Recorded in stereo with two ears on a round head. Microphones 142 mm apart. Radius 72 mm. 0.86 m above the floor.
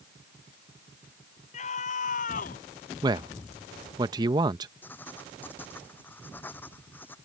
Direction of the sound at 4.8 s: 15° left (ahead or behind).